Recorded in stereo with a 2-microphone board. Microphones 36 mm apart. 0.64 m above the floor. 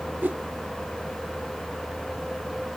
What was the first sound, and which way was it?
A whoosh, 65° right (ahead or behind).